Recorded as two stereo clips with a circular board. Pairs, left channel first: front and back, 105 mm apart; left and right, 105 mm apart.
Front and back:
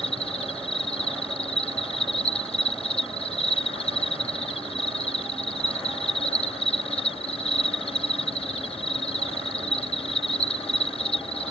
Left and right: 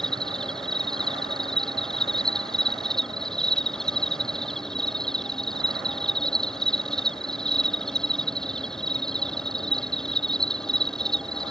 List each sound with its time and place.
0.0 s an insect: 5° left